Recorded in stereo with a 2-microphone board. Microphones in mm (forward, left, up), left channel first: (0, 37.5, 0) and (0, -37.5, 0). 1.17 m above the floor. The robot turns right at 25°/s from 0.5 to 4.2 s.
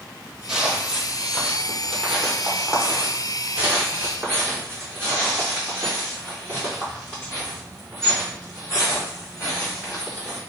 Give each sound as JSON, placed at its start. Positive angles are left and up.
{"t": 0.5, "sound": "footsteps", "side_deg": -5, "distance_m": 1.4}